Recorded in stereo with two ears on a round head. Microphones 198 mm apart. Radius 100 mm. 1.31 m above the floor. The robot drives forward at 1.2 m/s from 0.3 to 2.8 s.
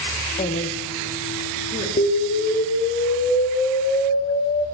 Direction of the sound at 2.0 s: 35° left (ahead or behind).